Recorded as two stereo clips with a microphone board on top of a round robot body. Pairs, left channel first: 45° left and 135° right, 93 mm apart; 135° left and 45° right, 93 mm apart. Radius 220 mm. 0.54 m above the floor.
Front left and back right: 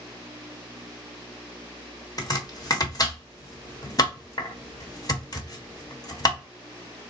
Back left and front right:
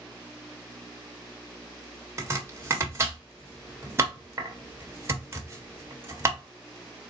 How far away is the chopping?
About 1.3 m.